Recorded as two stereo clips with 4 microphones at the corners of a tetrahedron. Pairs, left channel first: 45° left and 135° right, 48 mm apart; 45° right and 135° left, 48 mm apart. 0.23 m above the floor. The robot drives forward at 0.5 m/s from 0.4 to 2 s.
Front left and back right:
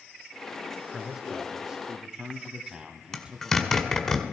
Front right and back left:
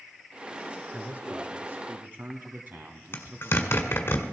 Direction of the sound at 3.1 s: 30° right.